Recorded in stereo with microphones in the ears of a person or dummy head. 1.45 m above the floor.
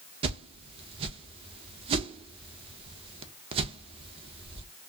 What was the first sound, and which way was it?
A whoosh, 35° right (ahead or behind).